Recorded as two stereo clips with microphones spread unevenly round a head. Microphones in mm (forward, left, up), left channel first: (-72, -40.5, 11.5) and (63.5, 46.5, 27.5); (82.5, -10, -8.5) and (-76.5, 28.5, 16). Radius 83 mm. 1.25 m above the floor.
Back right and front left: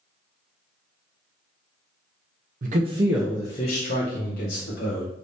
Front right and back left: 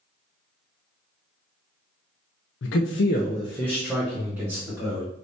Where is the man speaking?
5° right, 0.6 m; by 5.1 s 120° right, 1.7 m.